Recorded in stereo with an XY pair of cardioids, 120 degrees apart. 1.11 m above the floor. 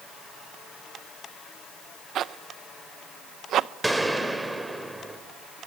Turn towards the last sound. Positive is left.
turn(degrees=-5)